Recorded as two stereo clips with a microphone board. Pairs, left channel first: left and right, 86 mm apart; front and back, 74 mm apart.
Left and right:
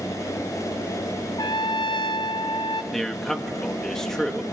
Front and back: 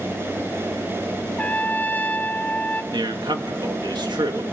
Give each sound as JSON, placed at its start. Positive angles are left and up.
{"t": 1.4, "sound": "a trumpet", "azimuth_deg": 65, "distance_m": 0.8}
{"t": 2.9, "sound": "a man speaking", "azimuth_deg": 175, "distance_m": 2.0}